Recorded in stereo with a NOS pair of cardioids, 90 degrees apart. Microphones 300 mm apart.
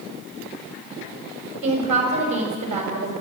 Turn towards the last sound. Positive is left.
turn(degrees=-70)